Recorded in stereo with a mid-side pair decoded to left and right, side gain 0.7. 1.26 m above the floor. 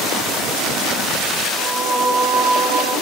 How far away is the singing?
About 1.8 m.